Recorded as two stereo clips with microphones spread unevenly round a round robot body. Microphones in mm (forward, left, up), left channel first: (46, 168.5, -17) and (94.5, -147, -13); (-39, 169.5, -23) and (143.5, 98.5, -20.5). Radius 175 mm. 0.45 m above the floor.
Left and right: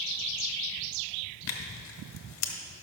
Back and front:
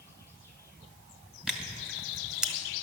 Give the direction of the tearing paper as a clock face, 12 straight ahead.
10 o'clock.